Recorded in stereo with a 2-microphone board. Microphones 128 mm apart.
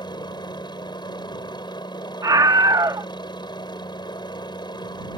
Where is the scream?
30° right (ahead or behind).